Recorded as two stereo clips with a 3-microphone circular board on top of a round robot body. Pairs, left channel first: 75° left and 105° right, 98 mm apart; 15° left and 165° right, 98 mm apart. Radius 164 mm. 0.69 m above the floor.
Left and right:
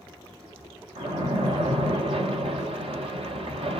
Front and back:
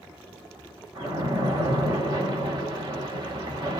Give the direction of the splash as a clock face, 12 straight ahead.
4 o'clock.